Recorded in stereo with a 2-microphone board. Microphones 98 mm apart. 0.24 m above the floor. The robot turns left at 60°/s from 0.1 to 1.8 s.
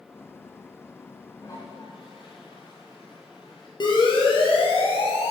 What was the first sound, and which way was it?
A toilet flushing, 30° left (ahead or behind).